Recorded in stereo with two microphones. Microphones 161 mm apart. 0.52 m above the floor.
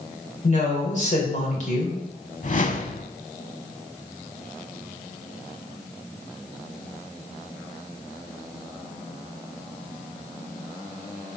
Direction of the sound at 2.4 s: 55° left (ahead or behind).